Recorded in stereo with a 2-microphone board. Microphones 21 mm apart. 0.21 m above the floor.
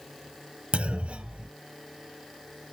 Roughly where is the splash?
I don't hear a splash.